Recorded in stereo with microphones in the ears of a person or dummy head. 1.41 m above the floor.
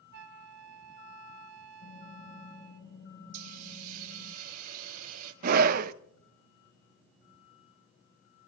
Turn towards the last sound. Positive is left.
turn(degrees=-50)  # may be behind; listen again after turning